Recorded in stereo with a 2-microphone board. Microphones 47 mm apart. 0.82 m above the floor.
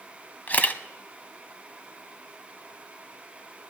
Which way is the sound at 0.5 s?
40° left (ahead or behind).